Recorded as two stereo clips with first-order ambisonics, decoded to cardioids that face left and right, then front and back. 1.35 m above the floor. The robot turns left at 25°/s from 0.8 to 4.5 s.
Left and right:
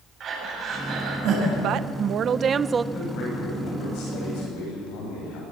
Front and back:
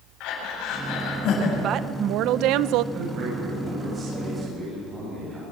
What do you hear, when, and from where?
0.2 s breathing: 35° right, 7.5 m; by 1.5 s 50° right, 7.5 m
1.6 s a woman speaking: 130° right, 0.6 m; by 2.8 s 160° right, 0.6 m
2.9 s a man speaking: 140° left, 9 m; by 5.4 s 100° left, 9 m